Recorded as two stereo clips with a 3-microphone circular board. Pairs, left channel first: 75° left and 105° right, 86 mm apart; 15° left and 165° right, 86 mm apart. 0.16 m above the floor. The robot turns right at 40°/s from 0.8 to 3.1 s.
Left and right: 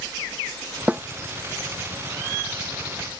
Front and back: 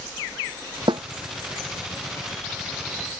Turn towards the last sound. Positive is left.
turn(degrees=-95)